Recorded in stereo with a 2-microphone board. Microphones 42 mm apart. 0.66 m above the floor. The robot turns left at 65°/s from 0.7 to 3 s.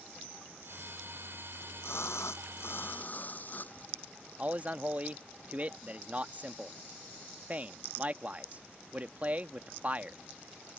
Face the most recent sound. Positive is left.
turn(degrees=-35)  # may be behind; listen again after turning